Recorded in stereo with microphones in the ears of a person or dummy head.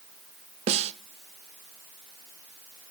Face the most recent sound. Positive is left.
turn(degrees=-40)  # may be behind; listen again after turning